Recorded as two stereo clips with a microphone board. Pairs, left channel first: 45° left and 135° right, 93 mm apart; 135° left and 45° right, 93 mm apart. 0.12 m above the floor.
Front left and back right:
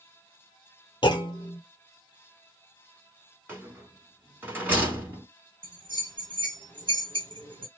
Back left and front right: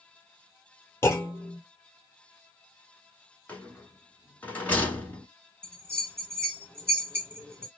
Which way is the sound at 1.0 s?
75° left.